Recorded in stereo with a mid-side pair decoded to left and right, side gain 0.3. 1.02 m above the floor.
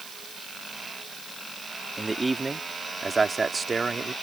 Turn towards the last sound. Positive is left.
turn(degrees=-50)